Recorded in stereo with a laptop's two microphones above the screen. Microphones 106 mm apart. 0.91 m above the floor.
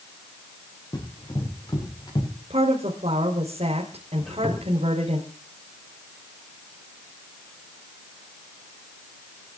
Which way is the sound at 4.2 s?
Centre (ahead or behind).